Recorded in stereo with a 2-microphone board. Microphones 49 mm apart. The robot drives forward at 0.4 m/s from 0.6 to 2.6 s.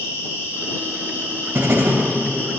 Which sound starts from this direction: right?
Writing, at 1.6 s.